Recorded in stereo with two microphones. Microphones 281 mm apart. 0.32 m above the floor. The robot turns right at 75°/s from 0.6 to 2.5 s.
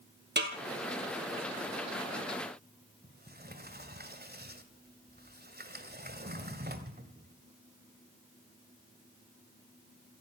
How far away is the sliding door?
About 1.9 m.